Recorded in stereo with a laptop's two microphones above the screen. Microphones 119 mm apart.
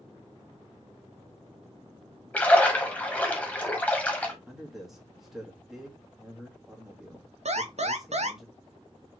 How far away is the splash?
About 0.8 m.